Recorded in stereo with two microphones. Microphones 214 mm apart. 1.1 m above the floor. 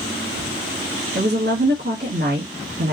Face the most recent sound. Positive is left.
turn(degrees=-50)  # may be behind; listen again after turning